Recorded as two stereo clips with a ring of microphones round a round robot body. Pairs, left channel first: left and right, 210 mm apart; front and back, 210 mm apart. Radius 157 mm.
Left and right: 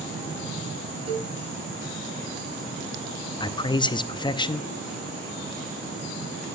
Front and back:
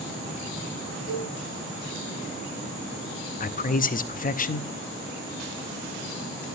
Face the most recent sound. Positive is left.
turn(degrees=30)